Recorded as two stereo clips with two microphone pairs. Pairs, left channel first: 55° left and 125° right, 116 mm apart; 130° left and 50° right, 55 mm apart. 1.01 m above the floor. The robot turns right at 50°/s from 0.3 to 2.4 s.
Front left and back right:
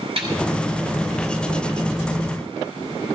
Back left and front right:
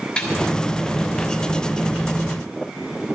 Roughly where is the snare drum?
Behind.